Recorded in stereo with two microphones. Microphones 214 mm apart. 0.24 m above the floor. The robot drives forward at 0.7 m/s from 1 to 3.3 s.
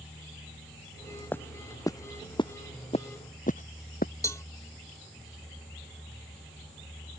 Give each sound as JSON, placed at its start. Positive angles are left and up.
{"t": 1.3, "sound": "footsteps", "side_deg": 10}
{"t": 4.2, "sound": "a cowbell", "side_deg": 15}